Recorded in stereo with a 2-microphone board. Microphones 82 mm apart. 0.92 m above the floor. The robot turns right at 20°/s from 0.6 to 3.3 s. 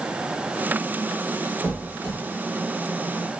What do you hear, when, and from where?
1.6 s a squeak: 25° right (ahead or behind), 1.1 m; by 2.1 s 20° right (ahead or behind), 1.1 m